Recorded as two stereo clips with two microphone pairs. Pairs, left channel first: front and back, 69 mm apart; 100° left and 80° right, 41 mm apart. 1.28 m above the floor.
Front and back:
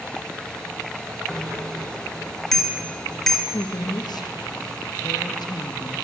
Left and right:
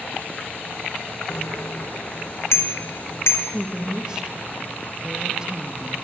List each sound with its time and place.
1.3 s a bicycle bell: 90° left, 3.5 m
3.5 s a woman speaking: 10° right, 2.0 m